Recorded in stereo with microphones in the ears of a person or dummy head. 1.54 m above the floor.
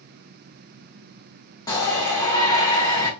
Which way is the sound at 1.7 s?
20° left (ahead or behind).